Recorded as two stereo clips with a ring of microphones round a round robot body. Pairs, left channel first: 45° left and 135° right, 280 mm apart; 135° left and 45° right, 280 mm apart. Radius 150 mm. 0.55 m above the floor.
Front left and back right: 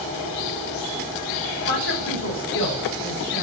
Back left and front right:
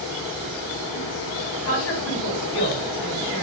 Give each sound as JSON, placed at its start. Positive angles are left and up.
{"t": 1.6, "sound": "a woman speaking", "azimuth_deg": 90, "distance_m": 5.0}